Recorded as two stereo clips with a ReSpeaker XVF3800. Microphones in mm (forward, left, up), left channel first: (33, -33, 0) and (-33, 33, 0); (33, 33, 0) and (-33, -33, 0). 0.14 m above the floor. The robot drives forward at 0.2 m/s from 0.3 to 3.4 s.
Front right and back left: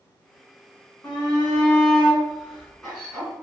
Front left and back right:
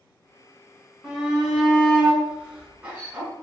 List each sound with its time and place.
1.0 s a shout: 70° right, 1.2 m; by 3.3 s 130° right, 1.3 m